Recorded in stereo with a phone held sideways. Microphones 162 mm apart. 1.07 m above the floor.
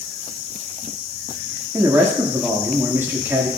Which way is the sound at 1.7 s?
15° right (ahead or behind).